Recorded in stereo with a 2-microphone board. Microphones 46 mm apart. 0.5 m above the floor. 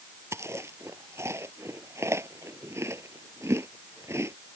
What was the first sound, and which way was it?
Chewing, 70° right (ahead or behind).